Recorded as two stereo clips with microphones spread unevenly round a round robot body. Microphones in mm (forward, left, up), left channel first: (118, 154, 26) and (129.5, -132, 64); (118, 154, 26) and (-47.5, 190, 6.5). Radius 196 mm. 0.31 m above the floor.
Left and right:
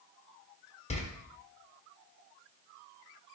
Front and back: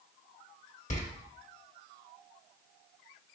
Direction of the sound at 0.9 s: 35° left.